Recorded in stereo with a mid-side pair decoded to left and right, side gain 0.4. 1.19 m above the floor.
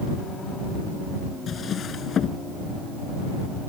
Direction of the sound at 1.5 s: 60° left.